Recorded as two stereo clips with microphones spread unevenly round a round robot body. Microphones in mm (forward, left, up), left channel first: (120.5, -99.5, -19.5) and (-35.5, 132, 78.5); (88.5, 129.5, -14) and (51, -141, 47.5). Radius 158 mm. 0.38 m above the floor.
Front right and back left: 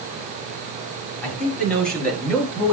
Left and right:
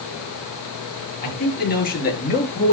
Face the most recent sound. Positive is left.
turn(degrees=25)